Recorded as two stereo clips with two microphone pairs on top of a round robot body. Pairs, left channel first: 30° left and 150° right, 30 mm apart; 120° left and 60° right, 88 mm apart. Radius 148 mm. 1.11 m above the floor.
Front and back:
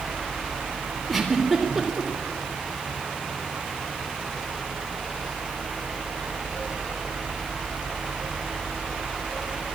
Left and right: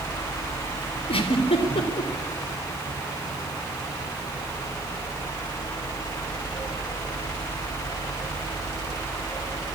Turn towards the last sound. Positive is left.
turn(degrees=120)